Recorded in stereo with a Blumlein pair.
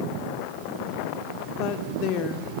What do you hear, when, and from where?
1.6 s a woman speaking: 40° left, 2.5 m